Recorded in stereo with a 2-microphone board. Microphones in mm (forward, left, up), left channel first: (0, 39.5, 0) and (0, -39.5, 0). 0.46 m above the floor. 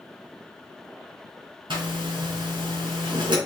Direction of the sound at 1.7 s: 80° right.